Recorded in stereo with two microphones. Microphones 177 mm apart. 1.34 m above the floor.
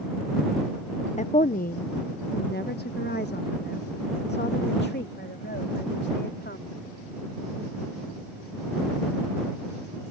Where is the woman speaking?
40° left (ahead or behind); by 6.7 s 75° left (ahead or behind).